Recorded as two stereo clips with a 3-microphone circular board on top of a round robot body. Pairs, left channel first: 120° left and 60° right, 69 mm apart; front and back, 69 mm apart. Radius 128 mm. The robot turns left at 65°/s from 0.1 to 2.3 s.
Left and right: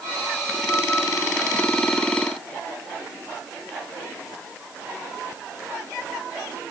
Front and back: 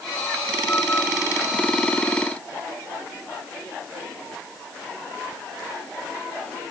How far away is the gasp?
No gasp in this recording.